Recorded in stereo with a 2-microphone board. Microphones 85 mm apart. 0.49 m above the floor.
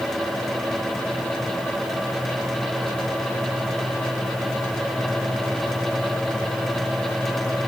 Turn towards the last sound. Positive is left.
No sound to turn to.